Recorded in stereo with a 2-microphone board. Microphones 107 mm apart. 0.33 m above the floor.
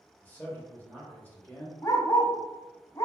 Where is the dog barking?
35° left (ahead or behind), 0.5 m.